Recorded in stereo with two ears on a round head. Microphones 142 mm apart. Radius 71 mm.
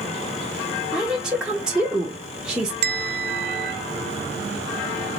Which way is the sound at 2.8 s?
70° right (ahead or behind).